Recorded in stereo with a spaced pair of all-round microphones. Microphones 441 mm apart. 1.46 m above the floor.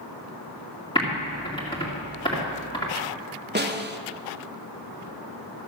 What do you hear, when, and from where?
0.9 s typing on a keyboard: 10° left (ahead or behind), 2.5 m
3.5 s a snare drum: 25° right (ahead or behind), 0.6 m